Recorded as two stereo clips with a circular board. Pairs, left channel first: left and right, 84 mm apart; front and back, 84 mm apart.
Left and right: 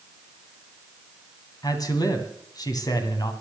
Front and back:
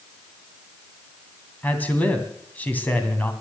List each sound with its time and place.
1.6 s a man speaking: 65° left, 2.5 m